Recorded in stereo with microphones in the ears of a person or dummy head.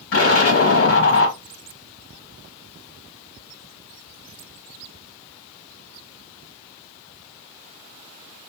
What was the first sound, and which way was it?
An explosion, 60° left (ahead or behind).